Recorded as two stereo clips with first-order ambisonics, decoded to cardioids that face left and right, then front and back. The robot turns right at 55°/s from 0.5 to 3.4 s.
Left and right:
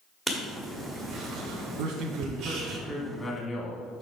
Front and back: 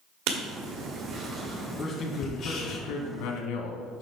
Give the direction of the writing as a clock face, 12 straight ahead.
6 o'clock.